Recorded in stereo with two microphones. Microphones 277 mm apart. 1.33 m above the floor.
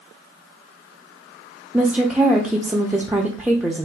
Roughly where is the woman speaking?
Centre.